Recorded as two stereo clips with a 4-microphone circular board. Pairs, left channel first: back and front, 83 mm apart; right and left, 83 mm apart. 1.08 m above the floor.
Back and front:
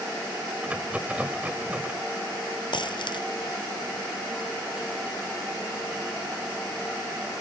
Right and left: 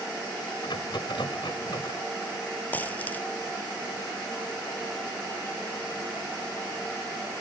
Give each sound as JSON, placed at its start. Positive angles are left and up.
{"t": 0.6, "sound": "a rattle", "azimuth_deg": -75}
{"t": 2.7, "sound": "a dropped coin", "azimuth_deg": -160}